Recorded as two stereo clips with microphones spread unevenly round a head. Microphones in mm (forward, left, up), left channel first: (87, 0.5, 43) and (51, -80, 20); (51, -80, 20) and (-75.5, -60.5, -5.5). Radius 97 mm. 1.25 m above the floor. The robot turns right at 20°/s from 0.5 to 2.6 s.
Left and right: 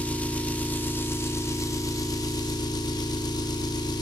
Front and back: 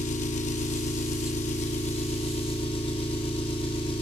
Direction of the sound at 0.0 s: Straight ahead.